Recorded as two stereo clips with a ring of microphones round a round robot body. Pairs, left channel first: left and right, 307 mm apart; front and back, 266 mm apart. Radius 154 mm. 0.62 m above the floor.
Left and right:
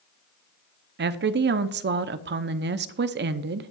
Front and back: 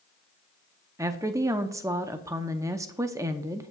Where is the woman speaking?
110° right, 0.6 m.